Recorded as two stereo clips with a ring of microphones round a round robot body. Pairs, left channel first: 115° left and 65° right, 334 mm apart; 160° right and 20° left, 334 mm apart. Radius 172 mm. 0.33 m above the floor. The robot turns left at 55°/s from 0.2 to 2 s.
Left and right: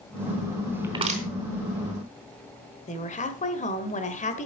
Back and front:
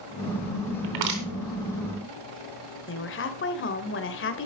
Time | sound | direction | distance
0.8 | crushing | 15° left | 3.5 m
2.9 | a woman speaking | 170° left | 1.7 m